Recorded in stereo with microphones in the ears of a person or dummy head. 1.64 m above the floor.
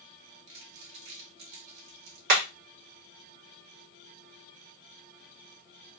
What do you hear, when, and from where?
0.5 s crumpling: 65° right (ahead or behind), 1.7 m
2.3 s hammering: 60° right (ahead or behind), 1.8 m